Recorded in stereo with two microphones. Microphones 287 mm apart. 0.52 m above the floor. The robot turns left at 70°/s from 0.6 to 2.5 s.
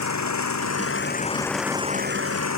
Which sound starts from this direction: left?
An engine running, at 0.0 s.